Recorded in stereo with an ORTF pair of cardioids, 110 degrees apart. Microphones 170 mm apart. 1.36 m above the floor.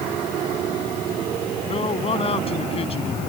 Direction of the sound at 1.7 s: 35° left.